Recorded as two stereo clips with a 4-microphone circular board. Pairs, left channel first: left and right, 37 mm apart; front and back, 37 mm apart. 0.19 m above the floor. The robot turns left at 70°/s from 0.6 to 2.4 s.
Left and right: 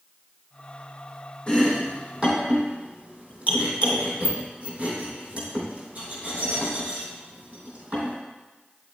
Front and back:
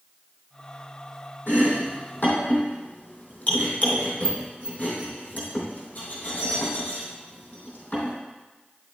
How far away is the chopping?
About 3.5 m.